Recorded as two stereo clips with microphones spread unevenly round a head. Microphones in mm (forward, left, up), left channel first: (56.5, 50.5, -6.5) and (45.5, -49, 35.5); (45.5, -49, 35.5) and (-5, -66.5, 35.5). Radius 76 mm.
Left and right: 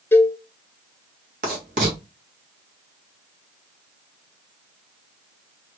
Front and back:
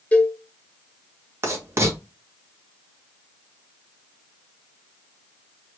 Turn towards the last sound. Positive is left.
turn(degrees=-125)